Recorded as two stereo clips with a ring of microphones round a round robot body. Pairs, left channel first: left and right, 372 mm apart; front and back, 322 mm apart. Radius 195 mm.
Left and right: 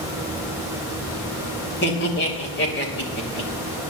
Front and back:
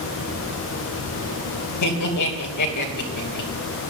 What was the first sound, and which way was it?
Laughter, 30° left.